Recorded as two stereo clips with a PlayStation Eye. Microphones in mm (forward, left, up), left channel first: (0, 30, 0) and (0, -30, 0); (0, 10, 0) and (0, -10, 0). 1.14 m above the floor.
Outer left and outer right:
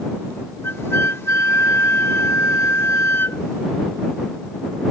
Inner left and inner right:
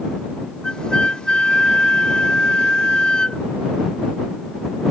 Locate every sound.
0.6 s a flute: 40° left (ahead or behind)